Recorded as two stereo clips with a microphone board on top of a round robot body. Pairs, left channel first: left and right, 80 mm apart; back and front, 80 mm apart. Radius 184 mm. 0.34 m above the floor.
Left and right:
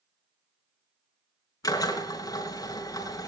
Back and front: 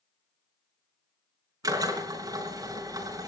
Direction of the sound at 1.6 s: 45° left.